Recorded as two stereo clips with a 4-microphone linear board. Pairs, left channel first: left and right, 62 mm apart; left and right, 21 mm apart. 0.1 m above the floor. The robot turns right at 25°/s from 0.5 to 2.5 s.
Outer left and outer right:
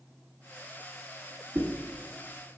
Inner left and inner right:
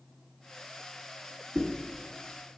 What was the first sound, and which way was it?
A whoosh, 35° right (ahead or behind).